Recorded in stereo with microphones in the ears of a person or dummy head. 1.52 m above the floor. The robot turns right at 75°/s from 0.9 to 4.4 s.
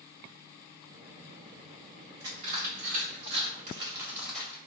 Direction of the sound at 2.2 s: 20° right (ahead or behind).